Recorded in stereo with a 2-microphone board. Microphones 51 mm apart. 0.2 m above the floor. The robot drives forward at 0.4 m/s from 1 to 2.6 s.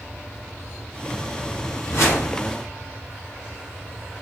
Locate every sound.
1.9 s a whoosh: 60° left (ahead or behind), 1.6 m